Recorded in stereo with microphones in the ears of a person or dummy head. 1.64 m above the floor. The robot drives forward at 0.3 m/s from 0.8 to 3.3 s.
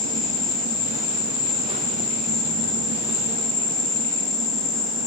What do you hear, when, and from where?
0.0 s an insect: centre (ahead or behind), 8.5 m